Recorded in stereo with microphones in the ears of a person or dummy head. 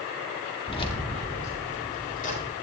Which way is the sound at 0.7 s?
25° left (ahead or behind).